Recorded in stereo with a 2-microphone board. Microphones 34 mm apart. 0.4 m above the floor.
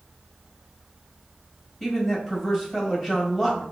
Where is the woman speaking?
5° left (ahead or behind), 1.7 m.